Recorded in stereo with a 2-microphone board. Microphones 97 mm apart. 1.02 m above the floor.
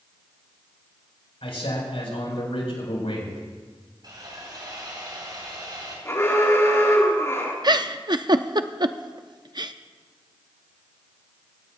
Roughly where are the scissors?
I don't hear scissors.